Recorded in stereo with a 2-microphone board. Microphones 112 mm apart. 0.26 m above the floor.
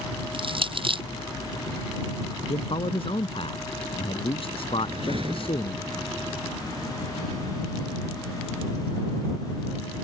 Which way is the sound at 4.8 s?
55° right (ahead or behind).